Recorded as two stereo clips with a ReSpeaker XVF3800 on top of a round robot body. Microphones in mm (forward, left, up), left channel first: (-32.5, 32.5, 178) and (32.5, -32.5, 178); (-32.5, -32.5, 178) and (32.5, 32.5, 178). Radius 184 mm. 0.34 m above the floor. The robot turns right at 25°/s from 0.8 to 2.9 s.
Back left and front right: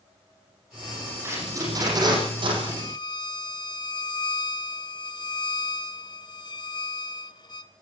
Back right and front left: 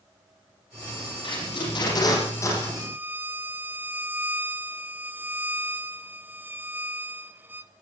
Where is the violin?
105° left, 1.7 m; by 7.7 s 110° left, 1.7 m.